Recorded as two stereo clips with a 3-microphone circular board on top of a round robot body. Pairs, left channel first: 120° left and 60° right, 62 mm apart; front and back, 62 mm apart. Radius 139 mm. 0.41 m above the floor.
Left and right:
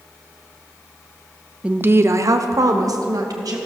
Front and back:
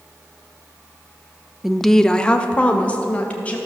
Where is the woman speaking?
100° right, 0.9 m; by 3.6 s 65° right, 3 m.